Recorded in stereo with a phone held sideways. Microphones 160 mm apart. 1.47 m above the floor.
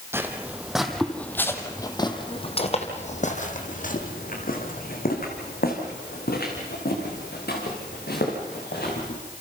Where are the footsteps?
15° right (ahead or behind), 2 m; by 9.2 s 75° left (ahead or behind), 6.5 m.